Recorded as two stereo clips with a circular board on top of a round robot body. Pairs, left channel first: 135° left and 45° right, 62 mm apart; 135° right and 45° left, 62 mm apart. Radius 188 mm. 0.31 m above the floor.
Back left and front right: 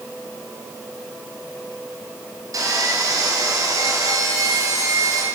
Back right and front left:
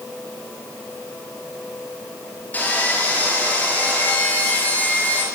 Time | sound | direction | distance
2.5 | sawing | 70° right | 6 m